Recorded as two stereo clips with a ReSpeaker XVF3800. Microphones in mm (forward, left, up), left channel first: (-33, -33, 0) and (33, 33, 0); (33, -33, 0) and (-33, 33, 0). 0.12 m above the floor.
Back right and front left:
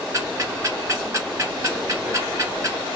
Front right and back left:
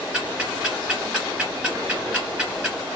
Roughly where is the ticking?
Ahead left.